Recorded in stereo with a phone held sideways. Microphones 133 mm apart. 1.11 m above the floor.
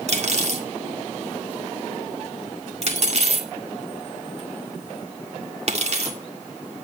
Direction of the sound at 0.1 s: 55° right (ahead or behind).